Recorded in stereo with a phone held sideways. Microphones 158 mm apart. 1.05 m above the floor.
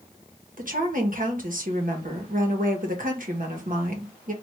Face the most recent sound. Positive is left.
turn(degrees=-60)  # may be behind; listen again after turning